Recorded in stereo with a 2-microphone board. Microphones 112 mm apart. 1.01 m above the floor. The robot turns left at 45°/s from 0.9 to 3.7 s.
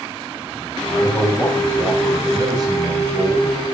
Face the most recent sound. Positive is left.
turn(degrees=-90)